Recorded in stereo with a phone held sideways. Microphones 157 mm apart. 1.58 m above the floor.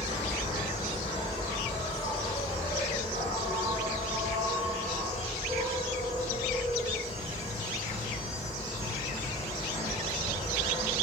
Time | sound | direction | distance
0.0 | an insect | 30° right (ahead or behind) | 1.9 m